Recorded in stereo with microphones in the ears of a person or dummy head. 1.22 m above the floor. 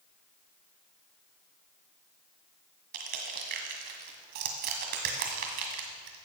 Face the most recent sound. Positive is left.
turn(degrees=-50)  # may be behind; listen again after turning